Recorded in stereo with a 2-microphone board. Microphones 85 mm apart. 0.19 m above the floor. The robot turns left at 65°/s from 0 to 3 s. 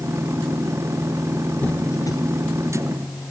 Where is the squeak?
15° left (ahead or behind), 2 m; by 2.2 s 50° left (ahead or behind), 2 m.